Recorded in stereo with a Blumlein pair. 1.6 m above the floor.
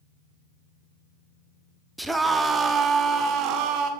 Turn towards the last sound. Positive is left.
turn(degrees=-40)